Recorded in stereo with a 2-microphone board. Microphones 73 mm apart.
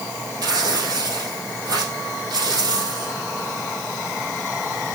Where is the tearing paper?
60° right (ahead or behind), 4 m.